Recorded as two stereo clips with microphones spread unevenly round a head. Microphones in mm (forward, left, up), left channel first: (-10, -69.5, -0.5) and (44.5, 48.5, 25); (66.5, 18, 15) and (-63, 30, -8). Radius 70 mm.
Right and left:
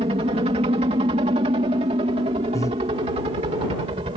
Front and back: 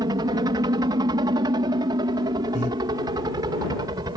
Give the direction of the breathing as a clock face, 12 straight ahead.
2 o'clock.